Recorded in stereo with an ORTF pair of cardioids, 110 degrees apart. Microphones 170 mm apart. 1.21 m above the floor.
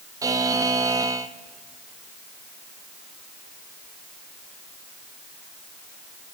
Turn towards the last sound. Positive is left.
turn(degrees=-20)